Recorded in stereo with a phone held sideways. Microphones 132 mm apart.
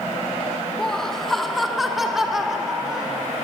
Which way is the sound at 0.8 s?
5° left (ahead or behind).